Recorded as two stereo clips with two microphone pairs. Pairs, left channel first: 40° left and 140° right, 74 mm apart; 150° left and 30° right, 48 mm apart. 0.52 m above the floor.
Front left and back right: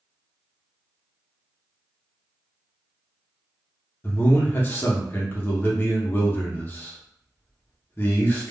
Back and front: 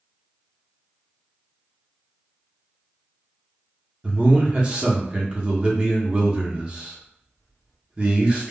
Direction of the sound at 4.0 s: 20° left.